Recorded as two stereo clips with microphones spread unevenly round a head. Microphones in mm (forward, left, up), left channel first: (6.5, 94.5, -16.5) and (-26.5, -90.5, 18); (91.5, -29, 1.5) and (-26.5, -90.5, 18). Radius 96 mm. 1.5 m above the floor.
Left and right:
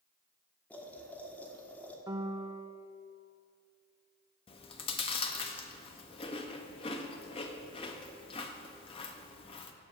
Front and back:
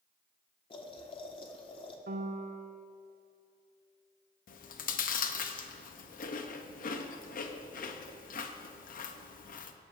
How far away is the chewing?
About 0.7 m.